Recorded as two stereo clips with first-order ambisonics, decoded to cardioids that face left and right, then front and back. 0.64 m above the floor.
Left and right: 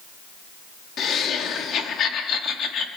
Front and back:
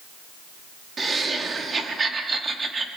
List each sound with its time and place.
1.0 s laughter: 115° left, 1.2 m